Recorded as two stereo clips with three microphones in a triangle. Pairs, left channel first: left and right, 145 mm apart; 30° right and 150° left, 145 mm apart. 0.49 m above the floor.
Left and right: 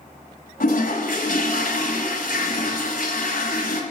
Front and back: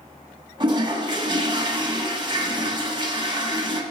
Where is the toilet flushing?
95° left, 1.2 m.